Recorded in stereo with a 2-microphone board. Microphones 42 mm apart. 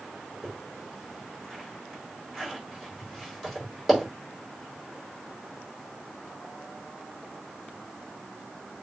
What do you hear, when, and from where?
0.4 s a zipper: centre (ahead or behind), 4.5 m